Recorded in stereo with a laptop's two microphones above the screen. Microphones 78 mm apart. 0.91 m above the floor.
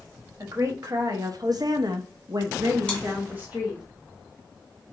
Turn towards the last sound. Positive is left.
turn(degrees=10)  # may be behind; listen again after turning